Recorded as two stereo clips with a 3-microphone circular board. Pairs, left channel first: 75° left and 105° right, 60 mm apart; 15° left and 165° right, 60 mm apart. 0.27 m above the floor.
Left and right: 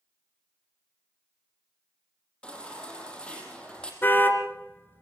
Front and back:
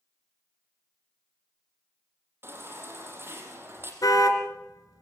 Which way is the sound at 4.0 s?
20° left.